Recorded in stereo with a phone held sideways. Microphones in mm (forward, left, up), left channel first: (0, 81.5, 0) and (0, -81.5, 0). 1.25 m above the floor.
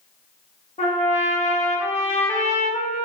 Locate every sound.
0.8 s a trumpet: 45° left (ahead or behind), 0.8 m